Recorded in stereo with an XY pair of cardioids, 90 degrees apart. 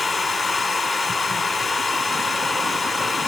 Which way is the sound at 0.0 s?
45° left.